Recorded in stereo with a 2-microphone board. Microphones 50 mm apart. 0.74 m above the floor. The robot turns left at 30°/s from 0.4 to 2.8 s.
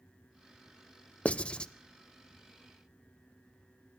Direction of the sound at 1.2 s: 25° left (ahead or behind).